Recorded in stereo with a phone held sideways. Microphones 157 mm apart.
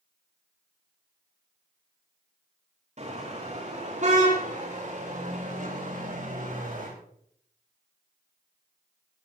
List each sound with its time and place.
3.0 s a car horn: 50° right (ahead or behind), 9 m; by 6.9 s 60° right (ahead or behind), 12.5 m